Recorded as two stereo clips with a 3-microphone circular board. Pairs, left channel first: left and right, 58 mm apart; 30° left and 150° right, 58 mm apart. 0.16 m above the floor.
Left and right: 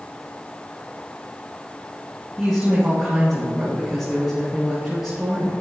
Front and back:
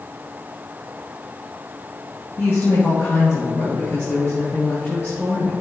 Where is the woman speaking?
5° right, 3 m.